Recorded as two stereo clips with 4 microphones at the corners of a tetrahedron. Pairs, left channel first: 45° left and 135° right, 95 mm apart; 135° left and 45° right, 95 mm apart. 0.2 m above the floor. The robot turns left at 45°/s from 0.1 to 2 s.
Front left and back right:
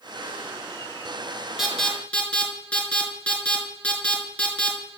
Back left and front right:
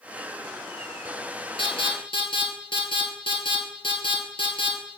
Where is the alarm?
140° left, 1.9 m; by 5.0 s 120° left, 1.9 m.